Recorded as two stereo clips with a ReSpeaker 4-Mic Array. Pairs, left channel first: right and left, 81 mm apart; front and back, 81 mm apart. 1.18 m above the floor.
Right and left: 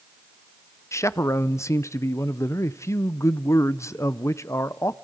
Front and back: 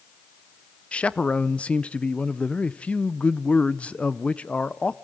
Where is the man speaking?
70° right, 0.5 m.